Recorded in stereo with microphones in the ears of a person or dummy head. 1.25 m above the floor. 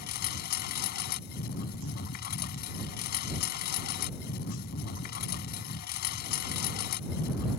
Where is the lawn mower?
60° left (ahead or behind).